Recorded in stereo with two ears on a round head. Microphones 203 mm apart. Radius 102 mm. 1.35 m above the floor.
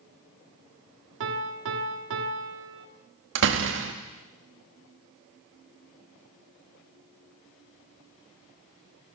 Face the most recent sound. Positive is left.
turn(degrees=-60)  # may be behind; listen again after turning